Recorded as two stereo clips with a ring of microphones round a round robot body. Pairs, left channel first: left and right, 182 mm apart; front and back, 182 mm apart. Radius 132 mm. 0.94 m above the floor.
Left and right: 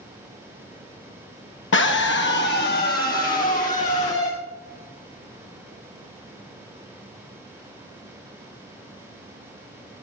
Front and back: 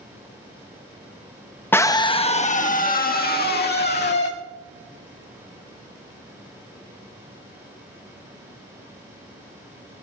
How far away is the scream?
About 0.9 m.